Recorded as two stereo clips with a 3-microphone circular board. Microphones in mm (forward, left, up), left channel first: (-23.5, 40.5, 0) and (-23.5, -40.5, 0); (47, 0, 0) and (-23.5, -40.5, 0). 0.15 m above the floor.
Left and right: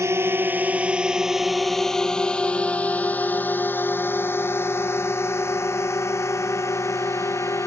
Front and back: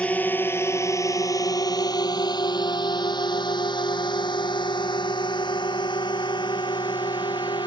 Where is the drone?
40° right; by 7.7 s 40° left.